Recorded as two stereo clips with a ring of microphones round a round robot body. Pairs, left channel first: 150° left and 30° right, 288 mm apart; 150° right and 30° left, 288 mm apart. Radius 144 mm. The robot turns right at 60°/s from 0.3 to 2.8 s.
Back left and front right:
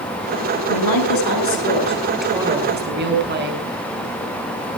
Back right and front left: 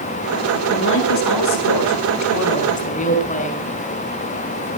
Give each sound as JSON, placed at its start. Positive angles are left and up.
{"t": 0.7, "sound": "a woman speaking", "azimuth_deg": 150, "distance_m": 5.0}